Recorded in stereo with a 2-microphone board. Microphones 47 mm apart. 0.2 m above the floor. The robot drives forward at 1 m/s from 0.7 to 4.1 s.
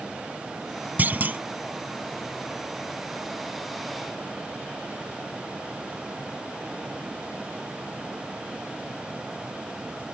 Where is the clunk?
40° right (ahead or behind).